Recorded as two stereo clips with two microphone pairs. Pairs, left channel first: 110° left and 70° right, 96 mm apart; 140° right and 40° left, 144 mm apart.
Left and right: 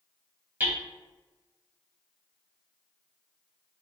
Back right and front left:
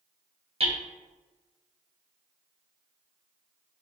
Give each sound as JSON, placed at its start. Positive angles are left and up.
{"t": 0.6, "sound": "hammering", "azimuth_deg": 0, "distance_m": 0.8}